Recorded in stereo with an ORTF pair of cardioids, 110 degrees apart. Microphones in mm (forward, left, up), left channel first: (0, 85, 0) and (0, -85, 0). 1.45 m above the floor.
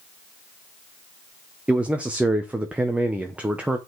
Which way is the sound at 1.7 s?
10° right.